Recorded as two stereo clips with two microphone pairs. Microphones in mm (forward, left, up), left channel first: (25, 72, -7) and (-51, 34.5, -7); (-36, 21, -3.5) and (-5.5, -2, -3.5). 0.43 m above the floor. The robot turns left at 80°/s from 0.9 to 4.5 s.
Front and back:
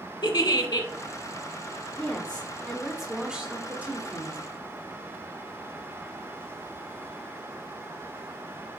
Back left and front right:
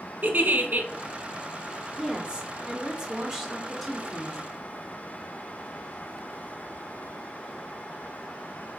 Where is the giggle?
5° left, 0.7 m.